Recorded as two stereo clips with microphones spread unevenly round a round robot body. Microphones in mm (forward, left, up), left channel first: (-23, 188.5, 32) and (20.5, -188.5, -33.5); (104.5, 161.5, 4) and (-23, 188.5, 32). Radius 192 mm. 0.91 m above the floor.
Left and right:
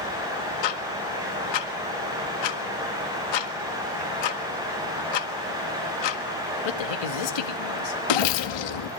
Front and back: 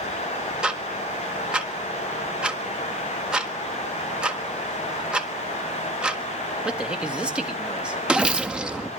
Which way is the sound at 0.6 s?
80° left.